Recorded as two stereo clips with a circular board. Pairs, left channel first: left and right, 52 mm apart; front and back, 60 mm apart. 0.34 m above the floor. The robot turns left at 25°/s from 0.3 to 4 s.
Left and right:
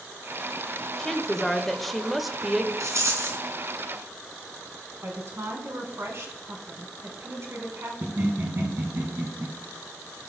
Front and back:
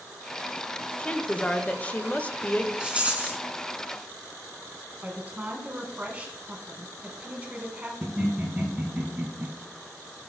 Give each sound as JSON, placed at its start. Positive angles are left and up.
{"t": 1.0, "sound": "a woman speaking", "azimuth_deg": 30, "distance_m": 0.9}
{"t": 2.8, "sound": "a rattle", "azimuth_deg": -105, "distance_m": 2.0}
{"t": 5.0, "sound": "a woman speaking", "azimuth_deg": -115, "distance_m": 3.0}
{"t": 8.0, "sound": "laughter", "azimuth_deg": -105, "distance_m": 2.5}